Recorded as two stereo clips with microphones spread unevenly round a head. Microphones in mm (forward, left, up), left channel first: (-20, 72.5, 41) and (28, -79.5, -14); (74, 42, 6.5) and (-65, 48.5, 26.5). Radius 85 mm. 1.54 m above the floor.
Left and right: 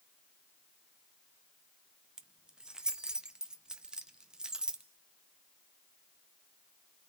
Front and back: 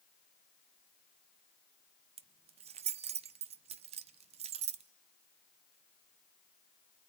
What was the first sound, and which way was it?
Keys jangling, 175° right.